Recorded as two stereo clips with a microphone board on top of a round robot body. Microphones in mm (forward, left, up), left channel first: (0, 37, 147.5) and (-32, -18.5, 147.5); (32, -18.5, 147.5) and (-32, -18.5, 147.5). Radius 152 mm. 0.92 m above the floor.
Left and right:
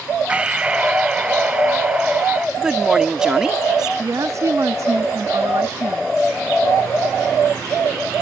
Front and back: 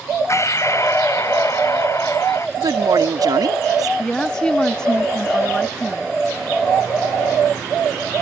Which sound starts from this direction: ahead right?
Breathing, at 0.3 s.